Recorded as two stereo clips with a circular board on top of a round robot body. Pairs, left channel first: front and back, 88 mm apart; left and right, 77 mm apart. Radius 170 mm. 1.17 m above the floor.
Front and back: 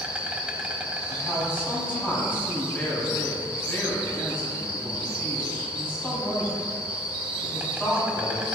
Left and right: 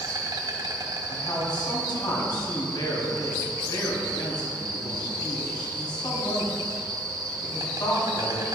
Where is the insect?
105° right, 1.3 m.